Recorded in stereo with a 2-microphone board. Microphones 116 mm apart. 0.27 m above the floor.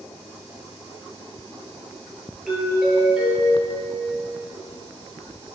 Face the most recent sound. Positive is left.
turn(degrees=-5)  # may be behind; listen again after turning